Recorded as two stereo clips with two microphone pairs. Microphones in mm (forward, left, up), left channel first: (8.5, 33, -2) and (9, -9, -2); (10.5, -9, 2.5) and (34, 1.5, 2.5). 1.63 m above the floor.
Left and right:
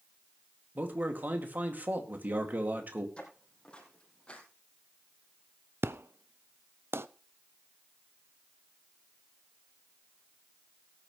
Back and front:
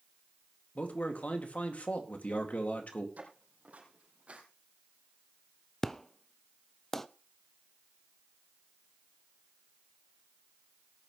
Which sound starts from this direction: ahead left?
Footsteps, at 3.2 s.